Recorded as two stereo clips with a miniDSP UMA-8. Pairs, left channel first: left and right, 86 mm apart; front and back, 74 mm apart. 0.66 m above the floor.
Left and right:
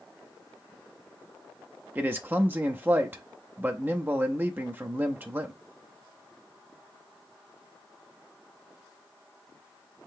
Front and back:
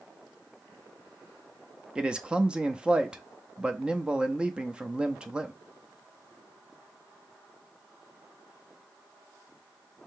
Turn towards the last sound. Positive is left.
turn(degrees=-120)